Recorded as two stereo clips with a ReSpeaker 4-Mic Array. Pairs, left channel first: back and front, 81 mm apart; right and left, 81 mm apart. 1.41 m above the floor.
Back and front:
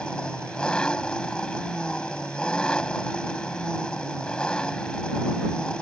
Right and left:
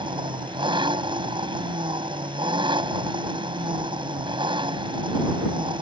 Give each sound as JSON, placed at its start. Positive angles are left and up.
{"t": 0.0, "sound": "an engine running", "azimuth_deg": 100}